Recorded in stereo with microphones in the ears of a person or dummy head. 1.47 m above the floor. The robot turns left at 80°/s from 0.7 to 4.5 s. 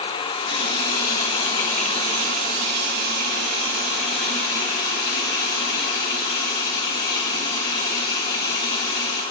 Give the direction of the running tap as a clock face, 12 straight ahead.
9 o'clock.